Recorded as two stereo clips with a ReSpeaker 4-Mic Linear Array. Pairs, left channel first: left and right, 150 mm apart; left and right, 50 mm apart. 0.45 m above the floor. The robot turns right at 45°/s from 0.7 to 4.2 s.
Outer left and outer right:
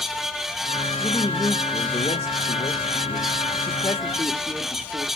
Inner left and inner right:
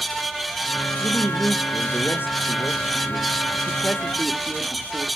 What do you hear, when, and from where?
1.0 s a woman speaking: 20° left, 1.0 m; by 5.1 s 160° left, 1.0 m